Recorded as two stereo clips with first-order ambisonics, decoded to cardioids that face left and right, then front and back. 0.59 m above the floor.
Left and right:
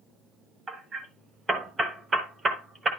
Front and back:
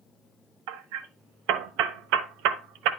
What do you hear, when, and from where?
0.7 s hammering: 165° right, 0.8 m